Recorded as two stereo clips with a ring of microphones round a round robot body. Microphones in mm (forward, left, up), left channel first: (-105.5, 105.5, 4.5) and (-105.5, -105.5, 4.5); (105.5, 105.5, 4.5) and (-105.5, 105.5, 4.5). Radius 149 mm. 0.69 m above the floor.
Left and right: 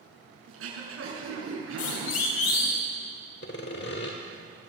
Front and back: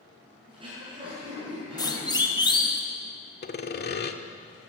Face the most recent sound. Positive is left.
turn(degrees=40)